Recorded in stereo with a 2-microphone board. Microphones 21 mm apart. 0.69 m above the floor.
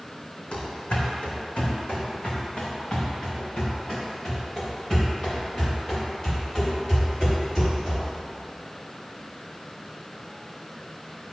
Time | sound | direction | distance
0.5 | running footsteps | 65° left (ahead or behind) | 2.5 m